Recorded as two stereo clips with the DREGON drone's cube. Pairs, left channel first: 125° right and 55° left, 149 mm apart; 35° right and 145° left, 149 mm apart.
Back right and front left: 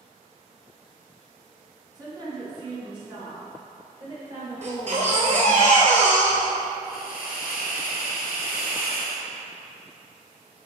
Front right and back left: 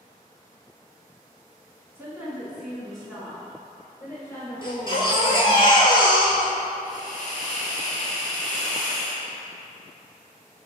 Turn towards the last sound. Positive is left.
turn(degrees=-120)